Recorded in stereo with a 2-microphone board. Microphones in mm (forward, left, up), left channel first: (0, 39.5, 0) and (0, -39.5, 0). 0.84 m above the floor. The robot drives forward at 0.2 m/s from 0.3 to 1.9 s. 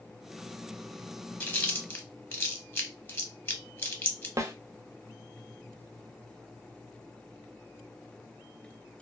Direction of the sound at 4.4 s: 40° right (ahead or behind).